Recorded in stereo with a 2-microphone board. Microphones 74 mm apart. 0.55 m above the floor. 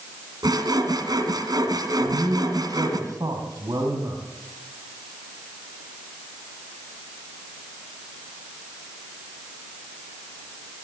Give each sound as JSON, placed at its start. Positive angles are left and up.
{"t": 0.4, "sound": "sawing", "side_deg": -70, "distance_m": 3.0}
{"t": 2.0, "sound": "a man speaking", "side_deg": -70, "distance_m": 4.0}